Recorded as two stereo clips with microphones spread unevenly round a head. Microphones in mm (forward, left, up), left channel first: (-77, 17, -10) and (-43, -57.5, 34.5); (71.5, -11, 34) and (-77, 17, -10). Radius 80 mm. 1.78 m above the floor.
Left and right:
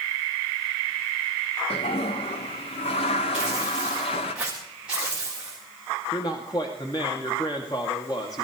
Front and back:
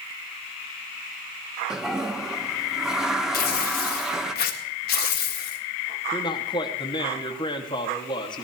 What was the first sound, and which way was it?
A toilet flushing, 80° left.